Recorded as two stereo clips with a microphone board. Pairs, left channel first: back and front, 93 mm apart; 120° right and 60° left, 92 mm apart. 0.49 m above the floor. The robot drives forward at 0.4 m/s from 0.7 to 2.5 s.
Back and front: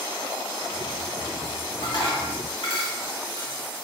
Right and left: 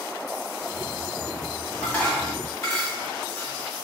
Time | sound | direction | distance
1.8 | dishes clattering | 175° left | 1.5 m